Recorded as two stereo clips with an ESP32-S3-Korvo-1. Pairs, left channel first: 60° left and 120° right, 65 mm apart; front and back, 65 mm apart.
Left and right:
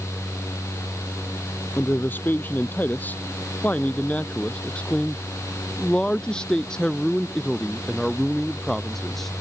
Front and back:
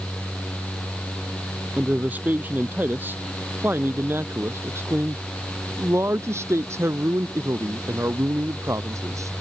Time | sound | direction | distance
1.8 | a man speaking | 115° left | ?